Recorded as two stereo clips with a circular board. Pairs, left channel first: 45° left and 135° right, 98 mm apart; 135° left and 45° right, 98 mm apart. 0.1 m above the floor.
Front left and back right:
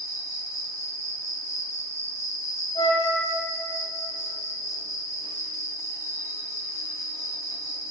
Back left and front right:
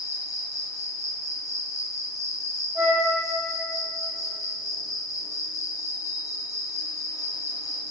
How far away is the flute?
About 2.5 m.